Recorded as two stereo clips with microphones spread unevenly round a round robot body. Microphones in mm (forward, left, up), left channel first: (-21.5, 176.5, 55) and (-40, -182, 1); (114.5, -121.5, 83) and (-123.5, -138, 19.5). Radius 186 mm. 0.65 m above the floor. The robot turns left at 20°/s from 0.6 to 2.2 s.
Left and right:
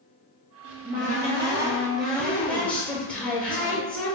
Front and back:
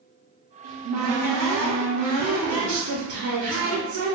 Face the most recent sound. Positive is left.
turn(degrees=170)